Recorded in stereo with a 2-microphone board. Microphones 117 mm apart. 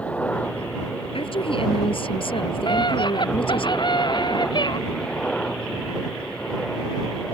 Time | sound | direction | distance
0.0 | a helicopter | 10° left (ahead or behind) | ?
1.1 | a woman speaking | 50° left (ahead or behind) | ?
2.7 | a scream | 40° left (ahead or behind) | ?